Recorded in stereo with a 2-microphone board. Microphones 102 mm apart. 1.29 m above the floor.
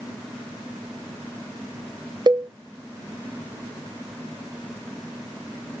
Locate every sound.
2.3 s a cowbell: 50° right (ahead or behind), 0.5 m